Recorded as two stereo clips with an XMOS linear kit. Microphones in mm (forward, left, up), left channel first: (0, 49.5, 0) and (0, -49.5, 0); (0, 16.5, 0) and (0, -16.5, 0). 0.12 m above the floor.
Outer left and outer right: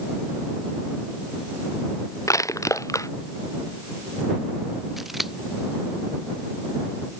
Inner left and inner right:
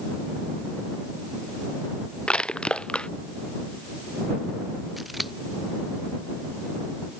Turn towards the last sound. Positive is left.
turn(degrees=0)  # may be behind; listen again after turning